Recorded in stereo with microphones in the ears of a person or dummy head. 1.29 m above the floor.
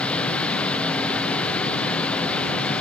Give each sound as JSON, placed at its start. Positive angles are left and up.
{"t": 0.0, "sound": "a machine running", "side_deg": 5}